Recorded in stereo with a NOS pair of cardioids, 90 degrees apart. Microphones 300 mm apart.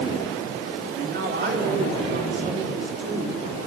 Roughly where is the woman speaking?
Ahead right.